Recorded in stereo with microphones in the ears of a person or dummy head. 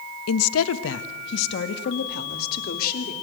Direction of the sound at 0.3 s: 85° left.